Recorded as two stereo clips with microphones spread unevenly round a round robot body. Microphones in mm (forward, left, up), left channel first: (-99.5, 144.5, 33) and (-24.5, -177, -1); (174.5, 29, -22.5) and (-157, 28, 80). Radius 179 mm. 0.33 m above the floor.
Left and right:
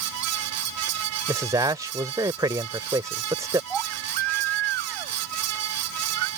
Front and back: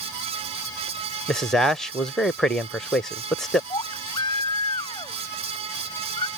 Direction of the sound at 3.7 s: 80° right.